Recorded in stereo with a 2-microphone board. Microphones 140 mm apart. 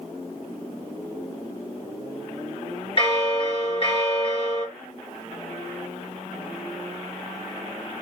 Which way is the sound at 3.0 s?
40° left (ahead or behind).